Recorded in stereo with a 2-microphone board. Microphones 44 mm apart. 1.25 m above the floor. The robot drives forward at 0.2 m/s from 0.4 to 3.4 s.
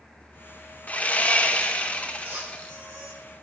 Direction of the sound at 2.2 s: 60° right (ahead or behind).